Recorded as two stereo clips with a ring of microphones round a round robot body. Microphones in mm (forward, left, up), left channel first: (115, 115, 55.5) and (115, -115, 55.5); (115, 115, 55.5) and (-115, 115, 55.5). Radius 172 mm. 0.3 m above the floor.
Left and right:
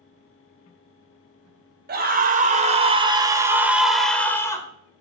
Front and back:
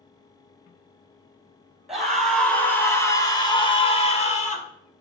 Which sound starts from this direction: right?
A scream, at 1.9 s.